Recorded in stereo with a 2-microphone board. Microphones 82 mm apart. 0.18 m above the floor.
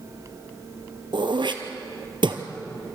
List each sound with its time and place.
1.1 s throat clearing: 75° right (ahead or behind), 2 m